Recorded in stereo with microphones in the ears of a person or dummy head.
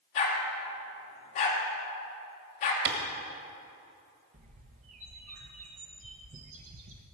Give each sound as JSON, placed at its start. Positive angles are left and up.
{"t": 0.1, "sound": "a dog barking", "side_deg": 40, "distance_m": 1.8}
{"t": 2.9, "sound": "a clap", "side_deg": -55, "distance_m": 1.6}
{"t": 4.3, "sound": "a bird", "side_deg": -35, "distance_m": 0.9}